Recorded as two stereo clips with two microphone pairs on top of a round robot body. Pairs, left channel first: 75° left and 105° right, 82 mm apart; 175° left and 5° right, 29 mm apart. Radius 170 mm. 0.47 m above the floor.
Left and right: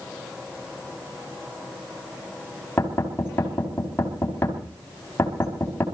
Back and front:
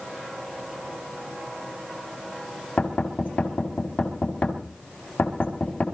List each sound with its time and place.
2.8 s knocking: 140° left, 4.5 m